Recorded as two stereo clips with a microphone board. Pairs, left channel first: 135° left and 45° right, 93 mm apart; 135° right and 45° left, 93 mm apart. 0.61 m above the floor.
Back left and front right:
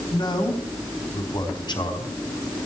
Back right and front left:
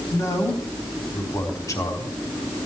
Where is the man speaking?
170° left, 4 m.